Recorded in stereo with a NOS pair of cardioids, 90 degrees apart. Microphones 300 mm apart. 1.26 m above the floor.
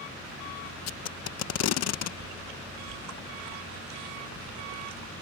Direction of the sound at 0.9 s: 60° left.